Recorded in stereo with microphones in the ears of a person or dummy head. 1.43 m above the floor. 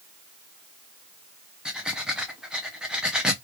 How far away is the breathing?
About 0.7 m.